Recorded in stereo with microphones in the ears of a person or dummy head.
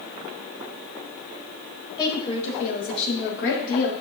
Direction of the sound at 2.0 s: 25° left (ahead or behind).